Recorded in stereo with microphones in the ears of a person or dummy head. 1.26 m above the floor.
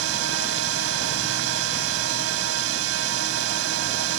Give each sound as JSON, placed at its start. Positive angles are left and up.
{"t": 0.0, "sound": "a drone", "side_deg": -85}